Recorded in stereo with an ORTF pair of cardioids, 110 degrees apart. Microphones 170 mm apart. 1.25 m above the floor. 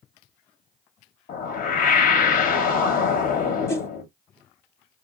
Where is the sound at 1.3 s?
60° left, 1.0 m.